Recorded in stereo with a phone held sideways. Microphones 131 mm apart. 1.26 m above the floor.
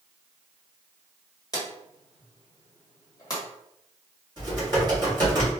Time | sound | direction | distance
1.5 | a drawer | 30° left (ahead or behind) | 1.3 m
4.4 | typing on a keyboard | 35° right (ahead or behind) | 1.9 m